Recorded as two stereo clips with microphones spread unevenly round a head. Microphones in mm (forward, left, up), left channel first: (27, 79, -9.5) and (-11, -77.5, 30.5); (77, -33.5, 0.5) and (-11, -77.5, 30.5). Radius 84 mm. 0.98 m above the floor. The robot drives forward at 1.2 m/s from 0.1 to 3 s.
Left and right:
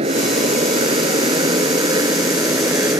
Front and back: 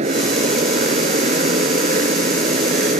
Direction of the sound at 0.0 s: 160° right.